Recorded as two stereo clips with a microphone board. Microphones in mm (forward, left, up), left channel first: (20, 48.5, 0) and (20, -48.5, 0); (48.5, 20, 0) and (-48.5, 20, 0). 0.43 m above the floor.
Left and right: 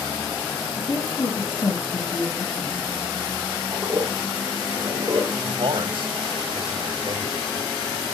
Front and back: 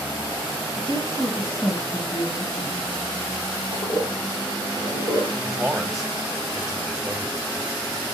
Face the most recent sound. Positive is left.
turn(degrees=-95)